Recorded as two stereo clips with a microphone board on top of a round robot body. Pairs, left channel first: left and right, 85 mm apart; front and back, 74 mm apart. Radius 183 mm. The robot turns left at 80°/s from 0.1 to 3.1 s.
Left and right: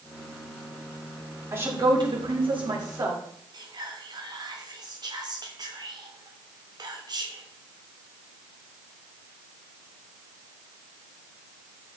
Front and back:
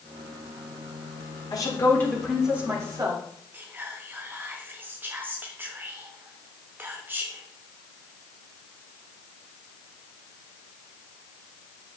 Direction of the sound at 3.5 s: 120° right.